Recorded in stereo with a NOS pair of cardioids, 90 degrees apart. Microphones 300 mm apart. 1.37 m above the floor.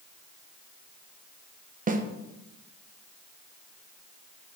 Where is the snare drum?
25° right, 0.9 m.